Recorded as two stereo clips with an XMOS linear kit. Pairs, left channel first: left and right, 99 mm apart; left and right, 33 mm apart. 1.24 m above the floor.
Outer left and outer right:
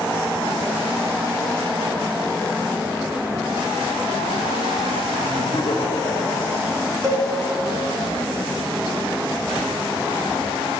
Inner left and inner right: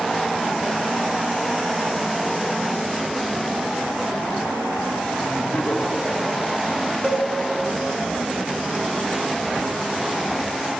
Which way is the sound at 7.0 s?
35° right (ahead or behind).